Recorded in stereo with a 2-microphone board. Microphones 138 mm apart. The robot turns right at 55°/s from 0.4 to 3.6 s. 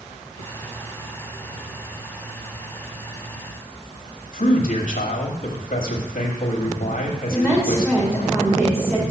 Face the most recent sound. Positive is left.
turn(degrees=-5)  # may be behind; listen again after turning